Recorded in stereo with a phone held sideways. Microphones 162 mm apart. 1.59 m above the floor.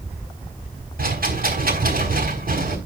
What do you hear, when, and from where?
1.0 s a rattle: 65° right (ahead or behind), 4.5 m